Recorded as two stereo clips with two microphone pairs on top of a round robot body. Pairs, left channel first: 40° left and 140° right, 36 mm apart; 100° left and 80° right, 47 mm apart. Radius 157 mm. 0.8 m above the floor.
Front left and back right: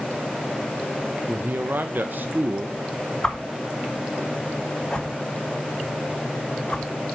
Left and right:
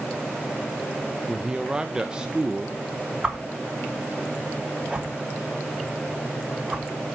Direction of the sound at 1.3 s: 145° right.